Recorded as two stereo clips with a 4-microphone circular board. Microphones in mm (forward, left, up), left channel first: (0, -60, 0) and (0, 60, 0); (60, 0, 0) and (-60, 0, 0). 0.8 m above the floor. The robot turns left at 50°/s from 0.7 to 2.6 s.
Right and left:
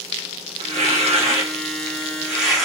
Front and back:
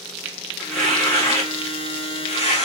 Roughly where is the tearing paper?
Left.